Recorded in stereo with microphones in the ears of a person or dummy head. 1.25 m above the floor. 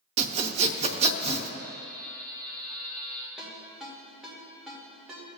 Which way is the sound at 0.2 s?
30° right (ahead or behind).